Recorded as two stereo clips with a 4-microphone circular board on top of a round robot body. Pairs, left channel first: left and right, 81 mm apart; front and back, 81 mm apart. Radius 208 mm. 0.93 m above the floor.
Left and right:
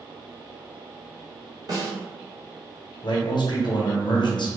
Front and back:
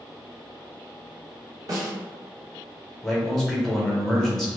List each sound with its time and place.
1.7 s a snare drum: 130° right, 1.1 m
3.0 s a man speaking: 85° left, 0.8 m